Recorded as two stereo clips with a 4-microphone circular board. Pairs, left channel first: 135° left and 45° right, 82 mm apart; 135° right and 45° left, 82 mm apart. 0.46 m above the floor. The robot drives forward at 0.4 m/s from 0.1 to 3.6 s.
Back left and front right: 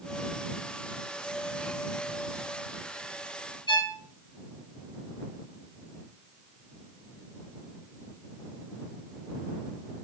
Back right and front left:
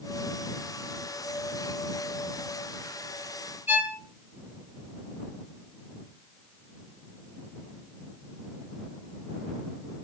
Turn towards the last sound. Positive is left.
turn(degrees=110)